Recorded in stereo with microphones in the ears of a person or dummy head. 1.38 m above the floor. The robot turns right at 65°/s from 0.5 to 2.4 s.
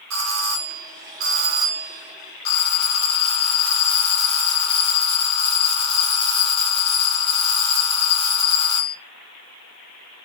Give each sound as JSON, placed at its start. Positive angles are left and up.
{"t": 0.1, "sound": "a doorbell", "azimuth_deg": -95, "distance_m": 2.0}